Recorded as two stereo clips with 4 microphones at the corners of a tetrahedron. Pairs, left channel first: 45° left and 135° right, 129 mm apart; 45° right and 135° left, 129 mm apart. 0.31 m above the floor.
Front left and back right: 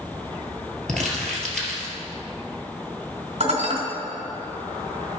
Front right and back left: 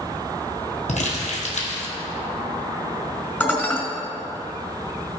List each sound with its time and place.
0.9 s crumpling: 40° right, 1.8 m
3.4 s dishes clattering: 120° right, 1.6 m